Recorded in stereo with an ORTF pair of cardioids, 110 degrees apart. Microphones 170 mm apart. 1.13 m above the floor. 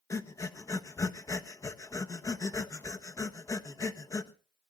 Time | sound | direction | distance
0.1 | breathing | 20° left | 1.2 m